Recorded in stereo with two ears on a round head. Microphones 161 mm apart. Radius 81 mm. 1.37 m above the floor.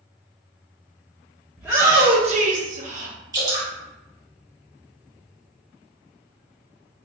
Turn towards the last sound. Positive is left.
turn(degrees=-20)  # may be behind; listen again after turning